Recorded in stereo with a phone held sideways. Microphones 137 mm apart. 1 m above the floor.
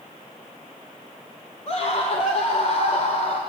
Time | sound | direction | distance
1.7 | a scream | 50° left (ahead or behind) | 3 m